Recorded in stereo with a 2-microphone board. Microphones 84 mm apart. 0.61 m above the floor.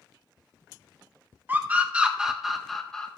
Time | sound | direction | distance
1.5 | a scream | 25° right (ahead or behind) | 1.5 m